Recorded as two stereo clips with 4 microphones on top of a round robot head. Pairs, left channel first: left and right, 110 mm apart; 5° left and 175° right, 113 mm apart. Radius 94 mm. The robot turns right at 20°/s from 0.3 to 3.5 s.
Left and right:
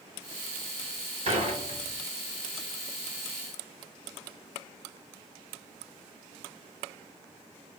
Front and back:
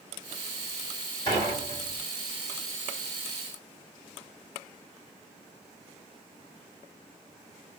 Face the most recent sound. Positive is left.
turn(degrees=-20)